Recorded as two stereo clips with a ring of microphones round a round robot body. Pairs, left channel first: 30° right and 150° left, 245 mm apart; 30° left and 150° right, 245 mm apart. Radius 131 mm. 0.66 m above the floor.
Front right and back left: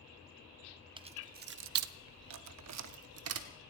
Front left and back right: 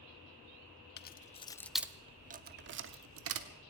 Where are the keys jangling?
80° left, 0.6 m; by 3.5 s straight behind, 1.0 m.